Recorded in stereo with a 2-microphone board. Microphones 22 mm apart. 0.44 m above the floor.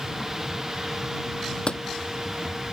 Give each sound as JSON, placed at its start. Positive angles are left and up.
{"t": 1.7, "sound": "a door slam", "side_deg": 55}